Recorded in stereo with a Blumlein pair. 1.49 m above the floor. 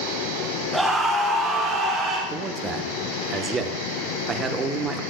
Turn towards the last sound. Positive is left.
turn(degrees=-20)